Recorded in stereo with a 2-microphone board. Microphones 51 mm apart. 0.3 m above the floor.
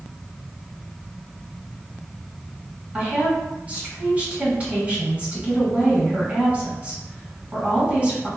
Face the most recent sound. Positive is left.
turn(degrees=-30)  # may be behind; listen again after turning